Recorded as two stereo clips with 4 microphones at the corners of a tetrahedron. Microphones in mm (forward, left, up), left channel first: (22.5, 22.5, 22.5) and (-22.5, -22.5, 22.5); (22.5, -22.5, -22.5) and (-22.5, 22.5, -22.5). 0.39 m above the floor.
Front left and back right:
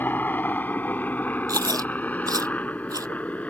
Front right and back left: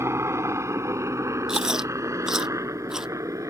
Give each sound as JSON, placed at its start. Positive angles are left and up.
{"t": 0.0, "sound": "a helicopter", "azimuth_deg": 100}
{"t": 1.5, "sound": "chewing", "azimuth_deg": -145}